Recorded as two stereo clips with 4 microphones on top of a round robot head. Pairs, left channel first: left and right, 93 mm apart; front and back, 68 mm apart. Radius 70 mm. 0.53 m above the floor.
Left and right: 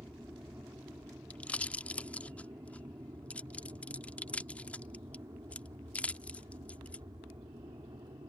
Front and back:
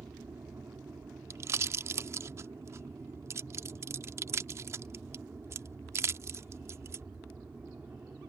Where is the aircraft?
150° right; by 8.3 s 115° right.